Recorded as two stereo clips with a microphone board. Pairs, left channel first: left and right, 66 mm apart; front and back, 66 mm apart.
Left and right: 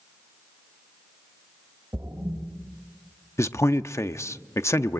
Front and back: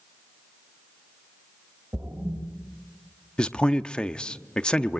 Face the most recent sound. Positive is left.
turn(degrees=70)